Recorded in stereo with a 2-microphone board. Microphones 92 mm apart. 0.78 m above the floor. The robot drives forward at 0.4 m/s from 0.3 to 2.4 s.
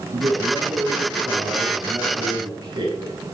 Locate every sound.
0.1 s a man speaking: 45° right (ahead or behind), 7 m; by 3.1 s 50° right (ahead or behind), 6.5 m